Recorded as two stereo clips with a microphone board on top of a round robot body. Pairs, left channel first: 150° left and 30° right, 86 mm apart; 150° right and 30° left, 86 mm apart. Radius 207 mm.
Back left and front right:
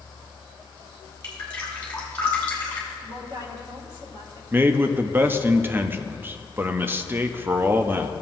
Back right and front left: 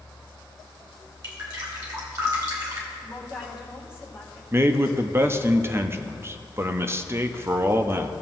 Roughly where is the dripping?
Left.